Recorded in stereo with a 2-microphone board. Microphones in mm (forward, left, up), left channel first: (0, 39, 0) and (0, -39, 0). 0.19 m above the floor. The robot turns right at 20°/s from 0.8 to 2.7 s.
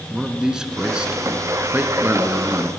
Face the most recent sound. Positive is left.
turn(degrees=-130)